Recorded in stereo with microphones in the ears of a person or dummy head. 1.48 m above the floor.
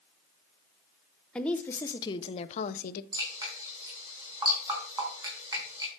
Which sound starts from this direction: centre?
A woman speaking, at 1.4 s.